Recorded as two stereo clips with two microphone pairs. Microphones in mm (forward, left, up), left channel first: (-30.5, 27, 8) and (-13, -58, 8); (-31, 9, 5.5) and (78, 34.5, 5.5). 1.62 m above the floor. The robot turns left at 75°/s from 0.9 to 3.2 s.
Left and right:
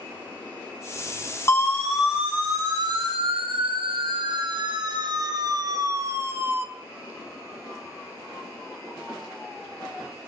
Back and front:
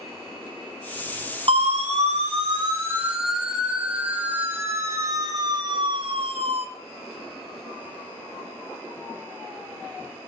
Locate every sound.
1.5 s a siren: 45° left, 3 m; by 6.7 s 10° right, 1.6 m